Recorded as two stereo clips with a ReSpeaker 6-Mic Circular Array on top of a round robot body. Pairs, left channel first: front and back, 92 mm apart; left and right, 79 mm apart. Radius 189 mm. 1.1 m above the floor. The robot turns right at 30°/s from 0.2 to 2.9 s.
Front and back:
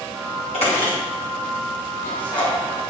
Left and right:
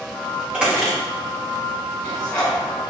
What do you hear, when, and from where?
0.5 s a squeak: 20° right, 1.3 m; by 2.6 s 45° left, 1.3 m